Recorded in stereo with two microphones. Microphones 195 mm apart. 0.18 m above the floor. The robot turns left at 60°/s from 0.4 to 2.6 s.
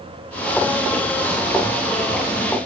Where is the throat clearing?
No throat clearing in this recording.